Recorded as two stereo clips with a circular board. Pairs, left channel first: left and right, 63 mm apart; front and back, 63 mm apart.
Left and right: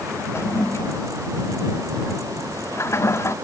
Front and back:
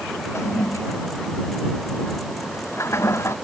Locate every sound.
0.3 s a toilet flushing: 45° left